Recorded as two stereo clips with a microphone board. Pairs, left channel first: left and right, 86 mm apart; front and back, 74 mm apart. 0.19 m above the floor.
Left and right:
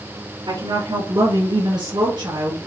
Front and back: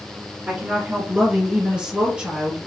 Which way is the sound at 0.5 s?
105° right.